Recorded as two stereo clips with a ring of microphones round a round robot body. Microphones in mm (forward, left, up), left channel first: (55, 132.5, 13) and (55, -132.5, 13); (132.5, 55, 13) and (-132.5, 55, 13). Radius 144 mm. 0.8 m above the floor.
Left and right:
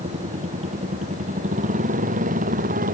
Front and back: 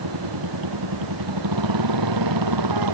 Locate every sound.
0.0 s a motorcycle: 160° right; by 3.0 s 155° right